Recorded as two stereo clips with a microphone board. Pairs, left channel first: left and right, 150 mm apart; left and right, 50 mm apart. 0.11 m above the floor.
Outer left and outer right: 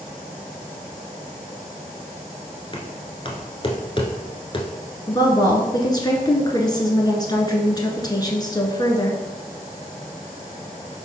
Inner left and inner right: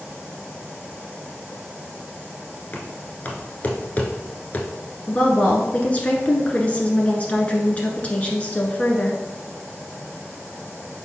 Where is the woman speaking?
30° left (ahead or behind), 1.3 m.